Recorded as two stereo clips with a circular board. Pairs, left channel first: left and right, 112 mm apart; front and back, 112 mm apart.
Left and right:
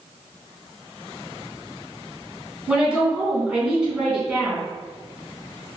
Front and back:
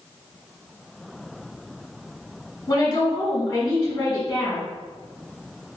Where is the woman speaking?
10° right, 1.5 m.